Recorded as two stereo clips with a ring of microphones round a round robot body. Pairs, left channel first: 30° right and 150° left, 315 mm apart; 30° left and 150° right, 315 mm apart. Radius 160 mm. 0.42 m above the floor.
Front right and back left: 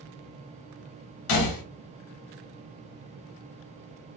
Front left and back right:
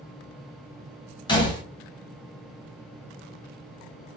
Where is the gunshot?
45° right, 1.1 m.